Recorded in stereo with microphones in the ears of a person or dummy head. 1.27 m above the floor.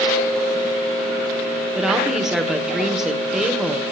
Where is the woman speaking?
Centre (ahead or behind), 1.0 m.